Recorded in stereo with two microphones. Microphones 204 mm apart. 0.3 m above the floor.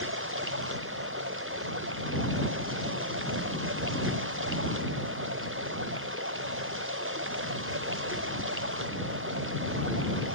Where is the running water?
90° right.